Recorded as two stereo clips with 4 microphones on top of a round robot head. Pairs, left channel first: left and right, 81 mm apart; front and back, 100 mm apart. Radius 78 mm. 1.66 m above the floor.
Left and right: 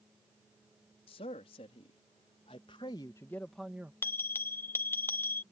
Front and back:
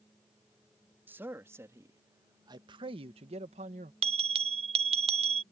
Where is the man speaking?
110° left; by 3.9 s 165° right.